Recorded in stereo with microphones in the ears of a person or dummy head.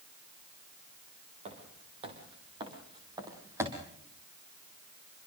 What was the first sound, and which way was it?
Footsteps, 40° right (ahead or behind).